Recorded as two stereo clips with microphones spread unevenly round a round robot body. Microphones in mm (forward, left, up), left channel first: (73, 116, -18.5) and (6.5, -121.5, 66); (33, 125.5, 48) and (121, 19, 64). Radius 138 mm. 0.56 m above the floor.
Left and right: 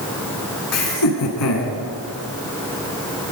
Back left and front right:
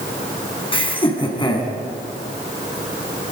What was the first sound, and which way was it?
Laughter, 80° left.